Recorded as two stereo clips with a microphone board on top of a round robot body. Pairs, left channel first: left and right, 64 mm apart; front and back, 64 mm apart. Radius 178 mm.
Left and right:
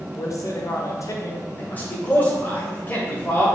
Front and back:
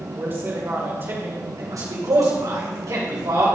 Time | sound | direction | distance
0.2 | a man speaking | 125° left | 2.0 m
1.6 | a man speaking | 150° left | 3 m